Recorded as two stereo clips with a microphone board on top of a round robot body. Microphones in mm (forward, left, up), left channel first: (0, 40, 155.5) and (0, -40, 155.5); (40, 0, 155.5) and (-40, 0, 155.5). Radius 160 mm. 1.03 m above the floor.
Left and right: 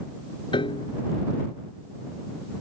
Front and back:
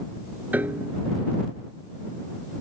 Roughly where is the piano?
Left.